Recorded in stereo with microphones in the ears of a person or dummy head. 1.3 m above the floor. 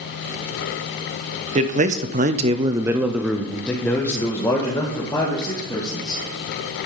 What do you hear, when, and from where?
1.6 s a man speaking: 35° right (ahead or behind), 1.0 m; by 6.2 s 20° left (ahead or behind), 3 m